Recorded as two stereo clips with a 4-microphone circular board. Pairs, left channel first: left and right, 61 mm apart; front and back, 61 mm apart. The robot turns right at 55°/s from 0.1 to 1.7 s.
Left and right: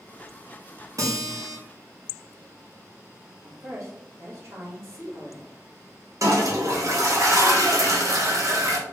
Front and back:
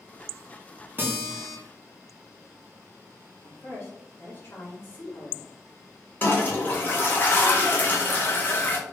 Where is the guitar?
125° right, 0.8 m; by 1.6 s 90° right, 0.8 m.